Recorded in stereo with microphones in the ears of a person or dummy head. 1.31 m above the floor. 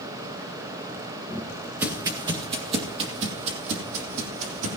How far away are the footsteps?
About 1.6 m.